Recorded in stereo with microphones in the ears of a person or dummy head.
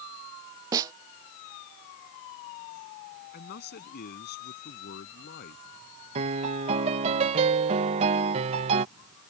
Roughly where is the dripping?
I don't hear dripping.